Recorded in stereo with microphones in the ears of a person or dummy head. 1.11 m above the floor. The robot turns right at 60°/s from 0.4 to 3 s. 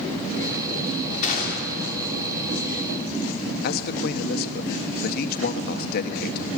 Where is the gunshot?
45° left, 3 m; by 2.0 s 90° left, 3 m.